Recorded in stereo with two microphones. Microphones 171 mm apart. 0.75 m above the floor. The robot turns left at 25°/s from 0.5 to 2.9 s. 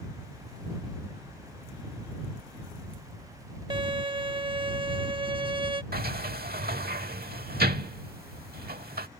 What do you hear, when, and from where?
3.7 s a violin: 30° right (ahead or behind)
5.9 s a sliding door: 65° right (ahead or behind)